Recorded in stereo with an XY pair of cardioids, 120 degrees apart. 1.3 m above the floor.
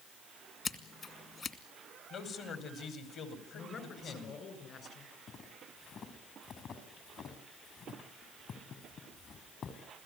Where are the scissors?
40° left, 2.5 m.